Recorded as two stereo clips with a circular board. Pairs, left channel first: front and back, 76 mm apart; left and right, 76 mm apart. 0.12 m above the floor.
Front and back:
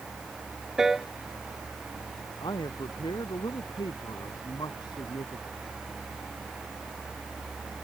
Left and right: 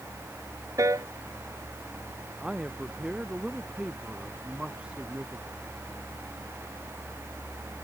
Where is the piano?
100° right.